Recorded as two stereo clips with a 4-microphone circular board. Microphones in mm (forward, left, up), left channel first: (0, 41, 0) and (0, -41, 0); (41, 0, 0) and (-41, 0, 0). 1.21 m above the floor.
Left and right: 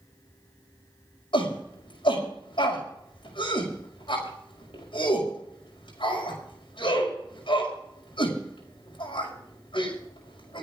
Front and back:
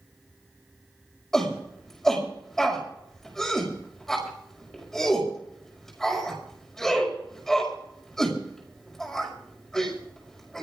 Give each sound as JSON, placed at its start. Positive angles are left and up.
{"t": 1.3, "sound": "a shout", "azimuth_deg": 85, "distance_m": 6.0}